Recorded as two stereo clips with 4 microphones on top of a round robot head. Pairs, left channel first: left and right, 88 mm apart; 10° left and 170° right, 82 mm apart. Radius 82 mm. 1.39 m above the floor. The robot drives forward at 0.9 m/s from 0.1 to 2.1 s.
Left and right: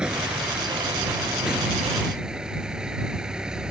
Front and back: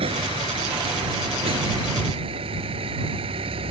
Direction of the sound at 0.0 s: 170° right.